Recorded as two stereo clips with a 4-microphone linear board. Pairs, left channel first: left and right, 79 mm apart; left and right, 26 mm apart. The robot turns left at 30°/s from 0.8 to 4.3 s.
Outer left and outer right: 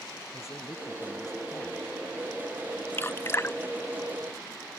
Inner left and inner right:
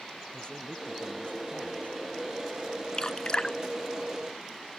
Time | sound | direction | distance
0.3 | a man speaking | 140° left | ?
2.9 | dripping | 30° left (ahead or behind) | ?